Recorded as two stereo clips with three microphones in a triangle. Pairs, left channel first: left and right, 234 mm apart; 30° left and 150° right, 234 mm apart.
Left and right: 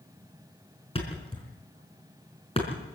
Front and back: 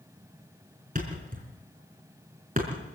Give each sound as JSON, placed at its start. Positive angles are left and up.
{"t": 0.9, "sound": "a thud", "azimuth_deg": 155, "distance_m": 4.5}